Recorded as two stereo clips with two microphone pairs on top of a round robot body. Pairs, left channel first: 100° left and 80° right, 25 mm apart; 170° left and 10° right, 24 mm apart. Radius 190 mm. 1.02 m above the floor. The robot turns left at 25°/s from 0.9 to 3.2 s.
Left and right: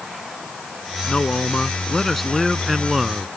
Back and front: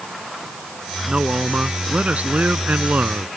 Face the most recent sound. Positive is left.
turn(degrees=-5)